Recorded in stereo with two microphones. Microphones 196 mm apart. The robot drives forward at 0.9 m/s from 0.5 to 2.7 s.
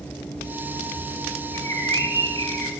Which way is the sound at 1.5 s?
85° left.